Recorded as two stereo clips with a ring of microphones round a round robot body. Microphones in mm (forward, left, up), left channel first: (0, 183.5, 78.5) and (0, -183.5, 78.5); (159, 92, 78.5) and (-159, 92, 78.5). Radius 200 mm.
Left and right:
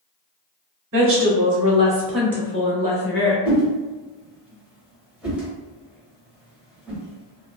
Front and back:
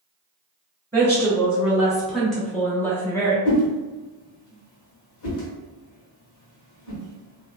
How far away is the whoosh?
About 1.1 m.